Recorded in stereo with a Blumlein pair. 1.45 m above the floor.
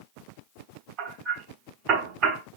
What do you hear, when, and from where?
1.0 s hammering: 35° right, 4.5 m